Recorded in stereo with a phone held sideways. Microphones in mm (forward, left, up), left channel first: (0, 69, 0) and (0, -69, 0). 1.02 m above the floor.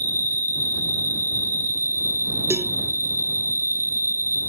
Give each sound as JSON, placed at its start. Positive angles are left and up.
{"t": 0.0, "sound": "an insect", "side_deg": 70}
{"t": 2.5, "sound": "a cowbell", "side_deg": -20}